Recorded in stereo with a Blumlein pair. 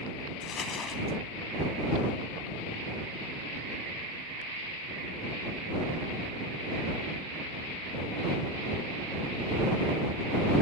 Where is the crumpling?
25° left.